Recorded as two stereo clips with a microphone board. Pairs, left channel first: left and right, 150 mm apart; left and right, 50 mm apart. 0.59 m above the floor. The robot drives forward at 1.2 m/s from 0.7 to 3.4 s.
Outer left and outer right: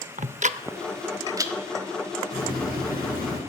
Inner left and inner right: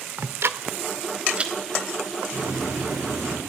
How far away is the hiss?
About 8.5 m.